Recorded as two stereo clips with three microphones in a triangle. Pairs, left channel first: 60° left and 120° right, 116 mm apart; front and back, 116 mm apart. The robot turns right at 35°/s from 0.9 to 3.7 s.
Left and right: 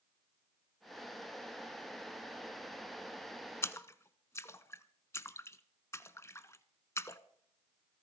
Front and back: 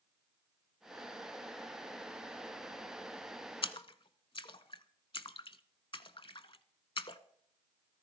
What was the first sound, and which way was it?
A splash, straight ahead.